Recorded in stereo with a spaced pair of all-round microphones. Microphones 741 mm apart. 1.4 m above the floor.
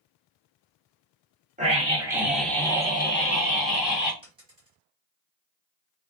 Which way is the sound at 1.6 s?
10° right (ahead or behind).